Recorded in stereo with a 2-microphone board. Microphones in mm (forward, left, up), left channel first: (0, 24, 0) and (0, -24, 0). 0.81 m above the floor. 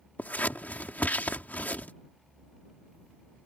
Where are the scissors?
35° left (ahead or behind).